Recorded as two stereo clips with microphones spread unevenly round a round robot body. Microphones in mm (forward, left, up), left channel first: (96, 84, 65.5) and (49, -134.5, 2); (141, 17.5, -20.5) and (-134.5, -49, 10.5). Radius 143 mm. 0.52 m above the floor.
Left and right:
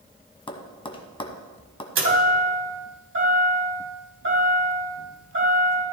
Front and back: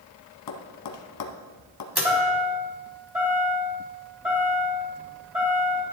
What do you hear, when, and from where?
0.5 s tapping: 10° left, 1.4 m
1.9 s a chime: 80° right, 3 m